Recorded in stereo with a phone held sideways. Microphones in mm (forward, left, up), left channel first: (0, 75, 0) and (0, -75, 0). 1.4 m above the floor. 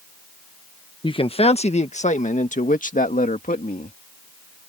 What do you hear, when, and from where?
1.0 s a man speaking: 35° left (ahead or behind); by 4.0 s 70° left (ahead or behind)